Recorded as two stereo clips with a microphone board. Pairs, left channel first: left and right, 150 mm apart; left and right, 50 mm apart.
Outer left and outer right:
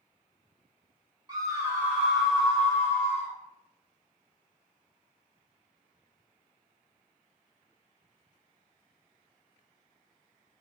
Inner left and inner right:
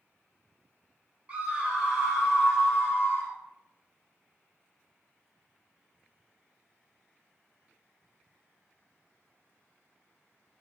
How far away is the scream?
About 1.0 m.